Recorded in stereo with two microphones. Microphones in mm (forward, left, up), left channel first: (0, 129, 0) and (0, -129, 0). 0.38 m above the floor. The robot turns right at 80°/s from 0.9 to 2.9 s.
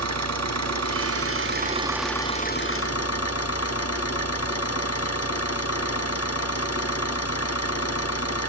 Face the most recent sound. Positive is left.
turn(degrees=70)